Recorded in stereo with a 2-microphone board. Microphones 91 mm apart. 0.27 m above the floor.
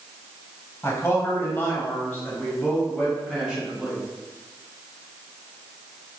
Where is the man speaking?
30° left (ahead or behind), 1.4 m; by 4.0 s centre (ahead or behind), 1.8 m.